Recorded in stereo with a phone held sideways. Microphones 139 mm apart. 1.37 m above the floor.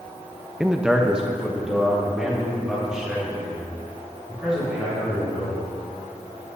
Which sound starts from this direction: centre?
A man speaking, at 0.6 s.